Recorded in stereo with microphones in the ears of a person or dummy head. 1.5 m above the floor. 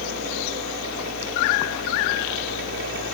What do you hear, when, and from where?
0.0 s a fan: 65° right (ahead or behind), 6.5 m